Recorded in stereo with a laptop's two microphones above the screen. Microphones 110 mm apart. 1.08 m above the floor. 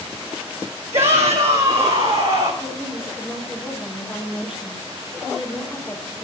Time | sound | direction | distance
0.9 | a shout | 65° right (ahead or behind) | 2.0 m
2.6 | a woman speaking | 10° right (ahead or behind) | 3.5 m